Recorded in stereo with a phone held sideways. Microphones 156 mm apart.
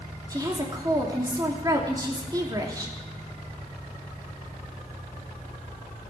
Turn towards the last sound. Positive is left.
turn(degrees=-25)  # may be behind; listen again after turning